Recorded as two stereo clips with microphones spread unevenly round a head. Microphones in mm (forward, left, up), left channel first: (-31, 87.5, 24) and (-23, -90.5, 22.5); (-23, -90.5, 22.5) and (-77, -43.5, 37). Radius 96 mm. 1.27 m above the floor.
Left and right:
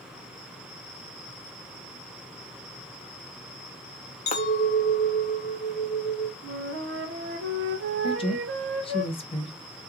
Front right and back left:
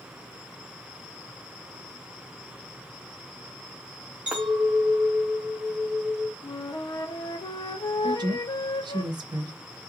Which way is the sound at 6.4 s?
65° right.